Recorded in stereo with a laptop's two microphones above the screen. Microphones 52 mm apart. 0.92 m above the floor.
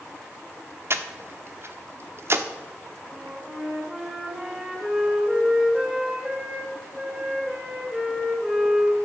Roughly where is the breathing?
Right.